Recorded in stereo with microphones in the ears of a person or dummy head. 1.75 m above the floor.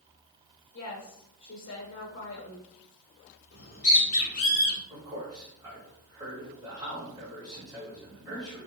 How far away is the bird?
About 0.9 m.